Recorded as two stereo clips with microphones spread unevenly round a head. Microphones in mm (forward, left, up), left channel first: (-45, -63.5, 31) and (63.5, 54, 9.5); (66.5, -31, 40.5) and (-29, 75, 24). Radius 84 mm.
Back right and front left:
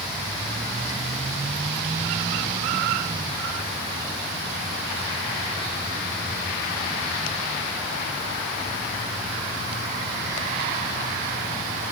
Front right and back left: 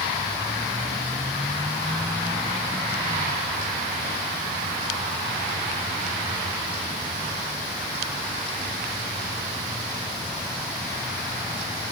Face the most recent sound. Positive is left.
No sound to turn to.